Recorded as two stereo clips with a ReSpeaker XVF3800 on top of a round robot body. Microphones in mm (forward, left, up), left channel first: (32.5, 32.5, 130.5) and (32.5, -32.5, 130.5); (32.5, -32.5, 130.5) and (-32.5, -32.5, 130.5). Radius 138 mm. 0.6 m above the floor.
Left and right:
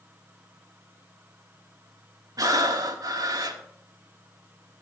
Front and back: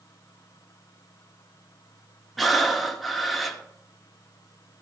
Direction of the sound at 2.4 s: 90° right.